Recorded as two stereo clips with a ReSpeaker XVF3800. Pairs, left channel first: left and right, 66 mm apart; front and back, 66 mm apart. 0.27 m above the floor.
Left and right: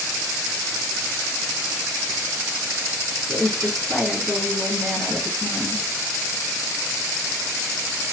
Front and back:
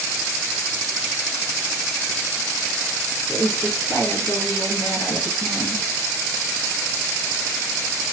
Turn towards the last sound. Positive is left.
turn(degrees=0)